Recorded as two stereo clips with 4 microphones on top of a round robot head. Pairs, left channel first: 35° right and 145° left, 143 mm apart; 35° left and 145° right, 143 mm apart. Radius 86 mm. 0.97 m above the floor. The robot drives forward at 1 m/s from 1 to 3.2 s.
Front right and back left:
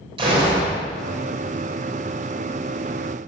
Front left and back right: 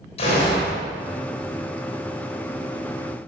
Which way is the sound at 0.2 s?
85° left.